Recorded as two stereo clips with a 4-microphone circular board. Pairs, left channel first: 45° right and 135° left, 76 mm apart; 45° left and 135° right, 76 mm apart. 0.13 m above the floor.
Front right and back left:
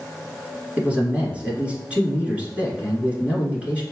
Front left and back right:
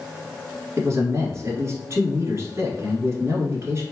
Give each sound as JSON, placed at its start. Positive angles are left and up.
{"t": 0.8, "sound": "a man speaking", "azimuth_deg": -160, "distance_m": 1.6}